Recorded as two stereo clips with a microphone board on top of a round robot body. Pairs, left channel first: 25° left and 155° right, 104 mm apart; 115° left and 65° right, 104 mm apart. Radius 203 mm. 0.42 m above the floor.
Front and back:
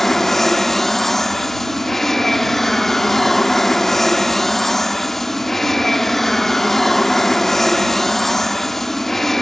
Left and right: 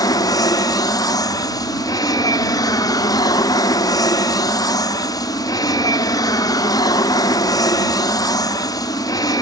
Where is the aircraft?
110° left.